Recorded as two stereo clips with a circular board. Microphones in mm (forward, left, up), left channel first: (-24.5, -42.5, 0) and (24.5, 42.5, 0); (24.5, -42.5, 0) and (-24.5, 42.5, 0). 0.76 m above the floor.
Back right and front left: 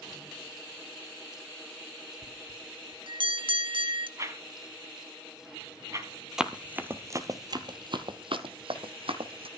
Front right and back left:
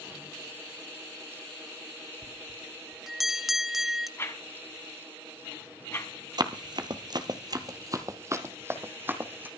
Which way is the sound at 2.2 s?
35° left.